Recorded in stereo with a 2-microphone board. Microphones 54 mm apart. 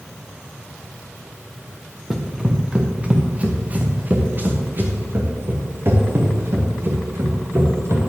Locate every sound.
2.1 s running footsteps: 5° right (ahead or behind), 1.7 m; by 8.0 s 55° right (ahead or behind), 4.5 m